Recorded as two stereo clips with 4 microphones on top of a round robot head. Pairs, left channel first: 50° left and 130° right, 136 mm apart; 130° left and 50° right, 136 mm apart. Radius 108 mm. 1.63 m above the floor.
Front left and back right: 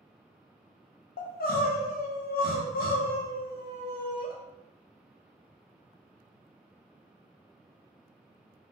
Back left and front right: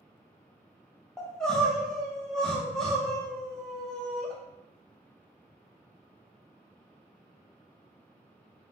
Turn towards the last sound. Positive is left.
turn(degrees=45)